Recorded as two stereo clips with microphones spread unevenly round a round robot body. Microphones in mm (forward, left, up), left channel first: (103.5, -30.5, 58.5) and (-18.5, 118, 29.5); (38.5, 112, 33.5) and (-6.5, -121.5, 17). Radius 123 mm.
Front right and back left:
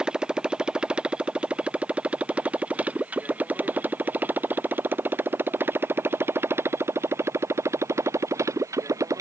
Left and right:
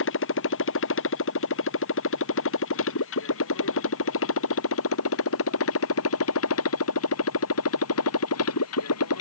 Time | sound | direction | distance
0.0 | a motorcycle | 45° left | ?